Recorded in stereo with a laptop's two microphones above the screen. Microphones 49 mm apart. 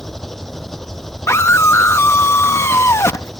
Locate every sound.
0.0 s an engine running: 5° left (ahead or behind)
1.3 s a scream: 70° left (ahead or behind)